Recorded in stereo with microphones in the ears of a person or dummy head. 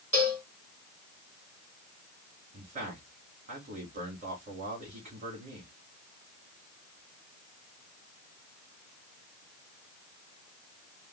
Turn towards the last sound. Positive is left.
turn(degrees=-40)  # may be behind; listen again after turning